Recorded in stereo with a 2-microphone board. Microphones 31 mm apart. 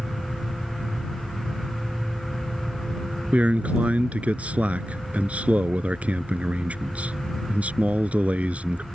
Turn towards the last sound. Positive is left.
turn(degrees=-50)  # may be behind; listen again after turning